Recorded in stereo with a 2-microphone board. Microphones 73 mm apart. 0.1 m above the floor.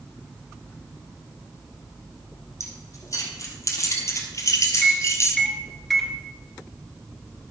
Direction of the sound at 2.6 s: 40° left (ahead or behind).